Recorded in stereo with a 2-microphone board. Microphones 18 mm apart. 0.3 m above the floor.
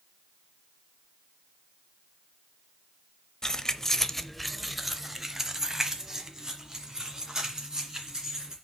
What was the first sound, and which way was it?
Keys jangling, 35° left (ahead or behind).